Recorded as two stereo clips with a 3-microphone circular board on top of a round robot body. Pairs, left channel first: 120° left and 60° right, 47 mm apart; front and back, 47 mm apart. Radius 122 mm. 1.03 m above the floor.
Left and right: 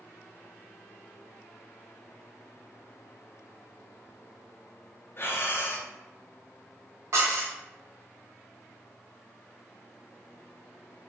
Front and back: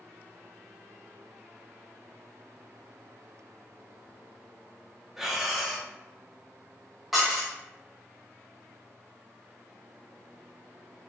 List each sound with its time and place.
5.2 s breathing: 95° left, 0.8 m
7.1 s dishes clattering: 95° right, 0.7 m